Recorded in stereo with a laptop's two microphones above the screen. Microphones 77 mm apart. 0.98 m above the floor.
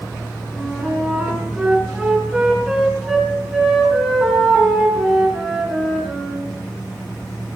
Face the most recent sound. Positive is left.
turn(degrees=-5)  # may be behind; listen again after turning